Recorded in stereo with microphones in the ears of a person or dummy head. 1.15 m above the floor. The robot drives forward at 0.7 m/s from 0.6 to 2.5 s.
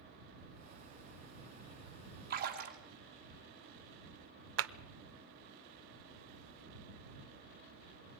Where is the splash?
50° right (ahead or behind), 2 m; by 2.8 s 45° right (ahead or behind), 2.5 m.